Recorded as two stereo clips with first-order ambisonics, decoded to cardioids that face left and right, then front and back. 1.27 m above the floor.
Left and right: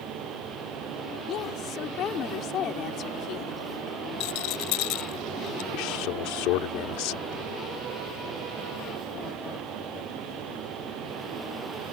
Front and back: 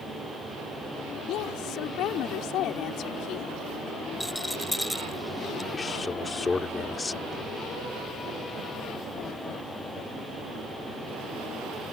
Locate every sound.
1.3 s a woman speaking: 40° left
4.2 s a rattle: 90° left
5.7 s a man speaking: 75° left